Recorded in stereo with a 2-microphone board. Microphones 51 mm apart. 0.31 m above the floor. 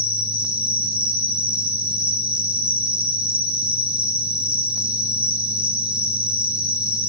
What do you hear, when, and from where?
0.0 s an insect: 25° right (ahead or behind), 7 m